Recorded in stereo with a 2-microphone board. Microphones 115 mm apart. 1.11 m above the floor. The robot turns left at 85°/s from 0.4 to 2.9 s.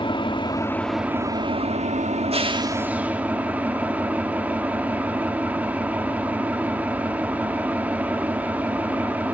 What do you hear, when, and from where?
0.0 s an engine running: 45° left, 1.3 m; by 9.3 s 165° right, 1.3 m